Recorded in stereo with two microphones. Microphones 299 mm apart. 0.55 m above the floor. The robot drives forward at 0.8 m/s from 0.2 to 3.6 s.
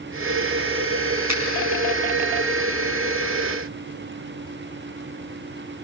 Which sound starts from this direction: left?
A finger snap, at 1.3 s.